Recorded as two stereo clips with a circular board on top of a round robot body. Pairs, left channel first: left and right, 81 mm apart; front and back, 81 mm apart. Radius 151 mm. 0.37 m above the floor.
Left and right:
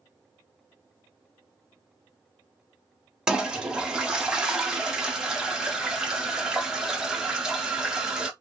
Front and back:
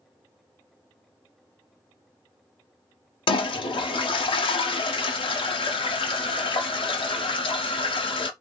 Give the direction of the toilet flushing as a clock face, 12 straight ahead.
12 o'clock.